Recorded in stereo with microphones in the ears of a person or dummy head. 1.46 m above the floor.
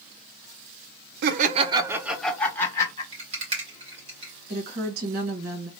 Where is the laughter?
60° right (ahead or behind), 0.6 m; by 3.0 s 20° left (ahead or behind), 1.2 m.